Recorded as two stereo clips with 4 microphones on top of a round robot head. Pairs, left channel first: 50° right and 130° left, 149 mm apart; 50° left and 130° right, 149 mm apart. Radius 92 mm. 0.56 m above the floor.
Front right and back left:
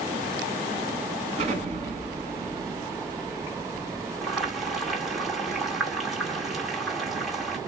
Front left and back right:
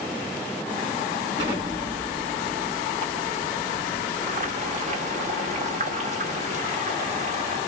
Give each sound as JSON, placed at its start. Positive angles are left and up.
{"t": 1.4, "sound": "an explosion", "azimuth_deg": 175, "distance_m": 3.0}
{"t": 4.2, "sound": "boiling", "azimuth_deg": -140, "distance_m": 1.9}